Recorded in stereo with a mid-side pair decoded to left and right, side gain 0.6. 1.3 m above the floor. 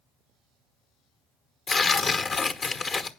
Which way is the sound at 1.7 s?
40° left.